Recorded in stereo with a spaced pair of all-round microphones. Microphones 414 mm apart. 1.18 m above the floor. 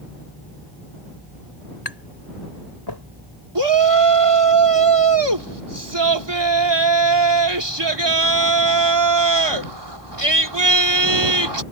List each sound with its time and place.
1.9 s tapping: 70° left (ahead or behind)
3.5 s a shout: 80° right